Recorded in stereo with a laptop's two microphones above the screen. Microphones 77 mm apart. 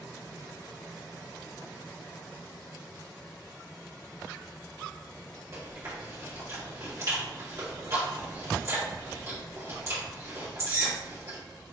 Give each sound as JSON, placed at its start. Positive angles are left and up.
{"t": 5.5, "sound": "chewing", "side_deg": -40, "distance_m": 2.5}